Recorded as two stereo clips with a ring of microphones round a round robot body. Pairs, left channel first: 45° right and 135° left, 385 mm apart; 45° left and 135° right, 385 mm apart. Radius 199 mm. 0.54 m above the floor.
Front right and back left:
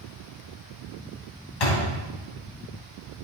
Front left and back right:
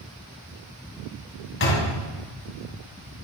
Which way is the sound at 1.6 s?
15° right.